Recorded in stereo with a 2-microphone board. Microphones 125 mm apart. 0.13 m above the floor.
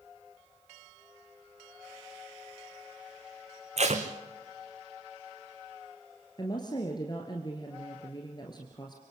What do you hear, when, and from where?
3.8 s tape being pulled: 65° right (ahead or behind), 2 m
6.4 s a woman speaking: 35° left (ahead or behind), 2 m